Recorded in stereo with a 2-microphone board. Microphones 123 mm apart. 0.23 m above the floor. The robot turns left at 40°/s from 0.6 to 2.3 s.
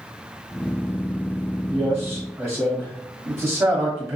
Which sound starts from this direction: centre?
A man speaking, at 1.7 s.